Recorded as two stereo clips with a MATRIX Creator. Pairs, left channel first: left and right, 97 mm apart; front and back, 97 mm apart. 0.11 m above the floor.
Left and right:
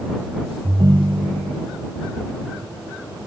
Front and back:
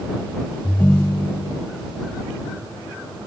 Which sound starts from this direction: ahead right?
A ringtone, at 0.6 s.